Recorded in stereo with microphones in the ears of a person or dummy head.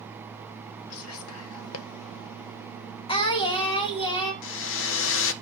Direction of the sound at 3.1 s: 25° left (ahead or behind).